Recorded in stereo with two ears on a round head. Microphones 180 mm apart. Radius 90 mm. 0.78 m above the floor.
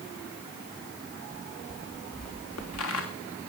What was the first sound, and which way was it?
Footsteps, 80° left.